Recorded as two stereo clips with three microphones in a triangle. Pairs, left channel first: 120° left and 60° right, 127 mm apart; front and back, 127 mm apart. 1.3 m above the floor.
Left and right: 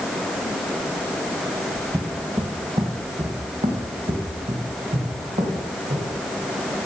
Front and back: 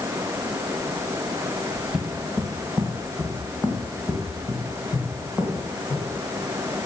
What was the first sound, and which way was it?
Footsteps, 95° right.